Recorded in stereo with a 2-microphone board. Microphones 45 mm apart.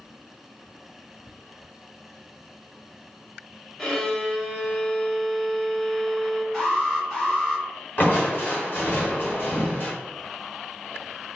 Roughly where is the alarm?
Centre.